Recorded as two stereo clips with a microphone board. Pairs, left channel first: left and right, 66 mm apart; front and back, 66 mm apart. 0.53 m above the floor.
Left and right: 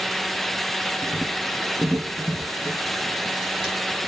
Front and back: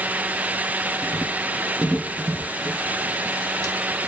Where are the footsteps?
40° left, 0.6 m; by 3.8 s 160° right, 1.3 m.